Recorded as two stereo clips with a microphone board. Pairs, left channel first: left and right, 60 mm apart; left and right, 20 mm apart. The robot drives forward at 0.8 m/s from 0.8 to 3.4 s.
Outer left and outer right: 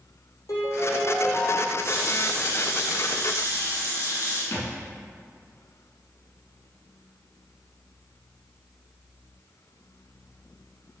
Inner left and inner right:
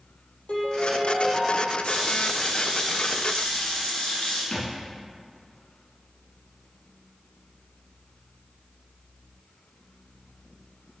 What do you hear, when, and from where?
0.5 s a piano: 80° left, 2.0 m; by 1.6 s 65° left (ahead or behind), 2 m
1.8 s a running tap: 65° left (ahead or behind), 2.5 m; by 4.4 s 80° left, 2.5 m
4.5 s a thud: 60° left (ahead or behind), 1.4 m